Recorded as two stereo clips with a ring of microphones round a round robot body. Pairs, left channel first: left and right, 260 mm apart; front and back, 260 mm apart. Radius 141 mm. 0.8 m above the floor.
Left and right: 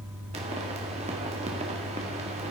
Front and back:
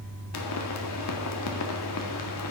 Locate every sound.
0.3 s a pop: 25° right, 1.8 m